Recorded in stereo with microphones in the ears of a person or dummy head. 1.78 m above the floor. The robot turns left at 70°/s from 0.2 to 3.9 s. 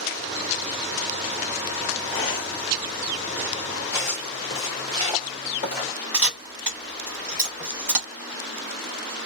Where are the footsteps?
10° left (ahead or behind), 1.9 m; by 5.9 s 35° left (ahead or behind), 2 m.